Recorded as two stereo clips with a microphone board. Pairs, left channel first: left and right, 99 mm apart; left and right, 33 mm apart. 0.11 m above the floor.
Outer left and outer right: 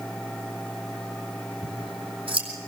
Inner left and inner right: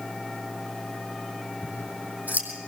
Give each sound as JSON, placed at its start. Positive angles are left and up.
{"t": 1.6, "sound": "scissors", "side_deg": -65, "distance_m": 4.5}